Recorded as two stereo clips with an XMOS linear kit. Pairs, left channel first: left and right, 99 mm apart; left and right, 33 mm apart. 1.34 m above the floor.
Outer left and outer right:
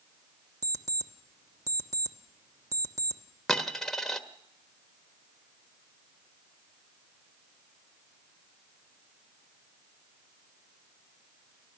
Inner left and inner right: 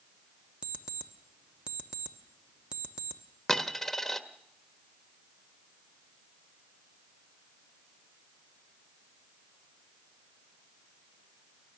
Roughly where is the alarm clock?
Right.